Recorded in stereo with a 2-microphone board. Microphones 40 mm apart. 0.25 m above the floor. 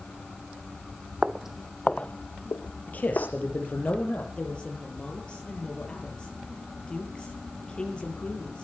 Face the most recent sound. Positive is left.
turn(degrees=25)  # may be behind; listen again after turning